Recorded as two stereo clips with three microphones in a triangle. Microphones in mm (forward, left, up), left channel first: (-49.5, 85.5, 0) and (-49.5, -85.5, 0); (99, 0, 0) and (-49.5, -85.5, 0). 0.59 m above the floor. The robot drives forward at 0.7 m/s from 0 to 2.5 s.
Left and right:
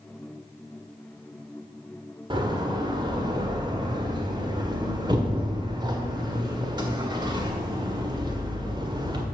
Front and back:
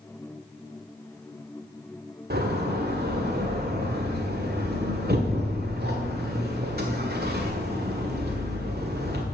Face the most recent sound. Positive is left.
turn(degrees=-155)